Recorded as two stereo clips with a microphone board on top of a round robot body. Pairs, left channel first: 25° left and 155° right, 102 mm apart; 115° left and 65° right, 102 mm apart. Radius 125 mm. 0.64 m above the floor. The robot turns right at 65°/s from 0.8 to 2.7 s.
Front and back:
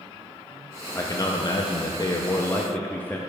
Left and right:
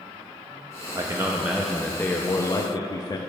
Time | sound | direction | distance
0.9 | a man speaking | 25° right | 0.6 m